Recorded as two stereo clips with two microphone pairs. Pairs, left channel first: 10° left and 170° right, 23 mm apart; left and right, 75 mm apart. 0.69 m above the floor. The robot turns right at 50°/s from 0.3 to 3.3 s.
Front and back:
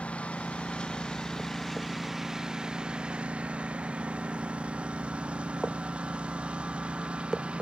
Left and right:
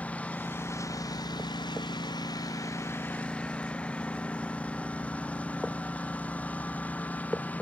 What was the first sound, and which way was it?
A lawn mower, 20° left.